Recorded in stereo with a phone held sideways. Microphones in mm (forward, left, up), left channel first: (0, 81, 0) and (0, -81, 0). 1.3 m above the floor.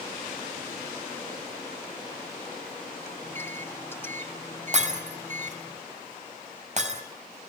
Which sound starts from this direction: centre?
A microwave, at 3.2 s.